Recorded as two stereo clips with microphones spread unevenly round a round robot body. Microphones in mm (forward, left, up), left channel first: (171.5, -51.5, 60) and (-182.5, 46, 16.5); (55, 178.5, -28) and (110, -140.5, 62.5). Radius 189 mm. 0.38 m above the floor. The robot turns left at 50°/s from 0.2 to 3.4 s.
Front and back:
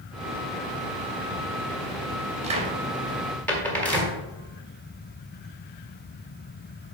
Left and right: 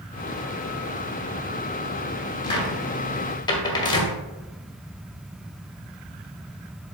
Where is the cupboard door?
125° left, 1.4 m; by 4.2 s 80° left, 1.4 m.